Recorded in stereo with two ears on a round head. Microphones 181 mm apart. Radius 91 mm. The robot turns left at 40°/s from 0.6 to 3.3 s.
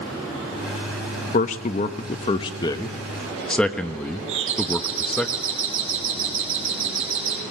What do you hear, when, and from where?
1.3 s a man speaking: 40° left (ahead or behind), 1.0 m; by 5.3 s 5° left (ahead or behind), 1.0 m
4.3 s a doorbell: 70° right (ahead or behind), 4.5 m